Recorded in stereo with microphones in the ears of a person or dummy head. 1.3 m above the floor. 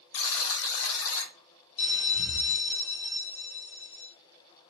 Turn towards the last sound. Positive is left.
turn(degrees=35)  # may be behind; listen again after turning